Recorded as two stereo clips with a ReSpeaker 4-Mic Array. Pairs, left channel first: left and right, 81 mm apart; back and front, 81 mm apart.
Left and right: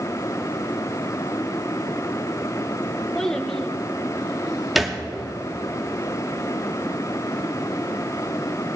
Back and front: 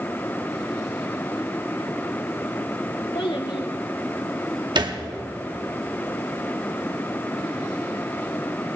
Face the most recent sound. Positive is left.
turn(degrees=-5)